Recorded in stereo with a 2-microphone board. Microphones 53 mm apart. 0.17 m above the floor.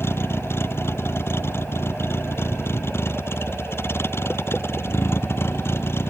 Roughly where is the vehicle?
Left.